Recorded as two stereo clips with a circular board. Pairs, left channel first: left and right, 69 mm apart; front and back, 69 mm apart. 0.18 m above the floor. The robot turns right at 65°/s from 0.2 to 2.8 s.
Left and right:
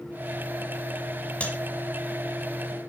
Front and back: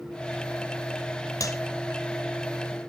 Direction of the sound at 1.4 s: 20° left.